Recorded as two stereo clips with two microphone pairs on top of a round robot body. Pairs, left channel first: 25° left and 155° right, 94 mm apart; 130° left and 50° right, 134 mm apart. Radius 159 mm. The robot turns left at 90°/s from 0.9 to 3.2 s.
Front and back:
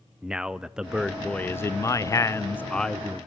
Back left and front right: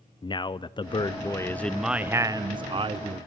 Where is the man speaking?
125° left, 0.5 m; by 3.3 s 85° right, 0.5 m.